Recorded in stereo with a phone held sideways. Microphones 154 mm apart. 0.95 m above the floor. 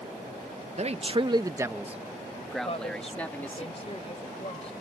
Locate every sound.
0.8 s a man speaking: 45° right (ahead or behind); by 3.6 s 15° left (ahead or behind)
2.6 s a woman speaking: 40° left (ahead or behind)